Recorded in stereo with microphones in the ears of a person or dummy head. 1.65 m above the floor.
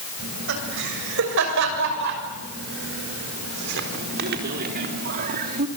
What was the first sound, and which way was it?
Laughter, 75° right (ahead or behind).